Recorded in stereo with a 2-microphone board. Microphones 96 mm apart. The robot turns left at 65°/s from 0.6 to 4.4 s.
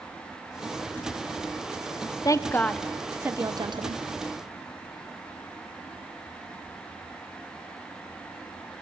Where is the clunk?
No clunk in this recording.